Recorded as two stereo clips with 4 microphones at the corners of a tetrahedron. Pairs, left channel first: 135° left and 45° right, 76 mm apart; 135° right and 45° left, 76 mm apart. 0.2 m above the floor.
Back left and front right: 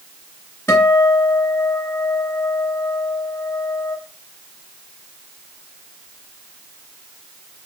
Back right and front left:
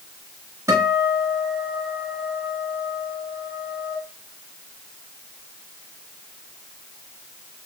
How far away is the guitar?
About 2.5 m.